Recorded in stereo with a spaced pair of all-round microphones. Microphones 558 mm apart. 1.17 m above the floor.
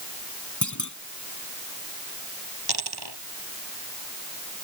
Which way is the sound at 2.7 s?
45° right (ahead or behind).